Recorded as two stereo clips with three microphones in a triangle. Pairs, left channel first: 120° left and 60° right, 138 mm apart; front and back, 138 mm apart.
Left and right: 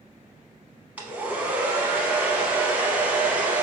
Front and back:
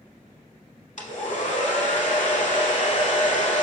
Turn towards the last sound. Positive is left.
turn(degrees=20)